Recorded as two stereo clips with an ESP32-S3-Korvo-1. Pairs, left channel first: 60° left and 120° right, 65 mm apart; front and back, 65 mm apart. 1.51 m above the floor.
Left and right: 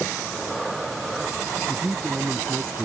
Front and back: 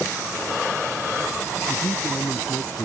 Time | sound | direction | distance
1.7 | a man speaking | 45° right | ?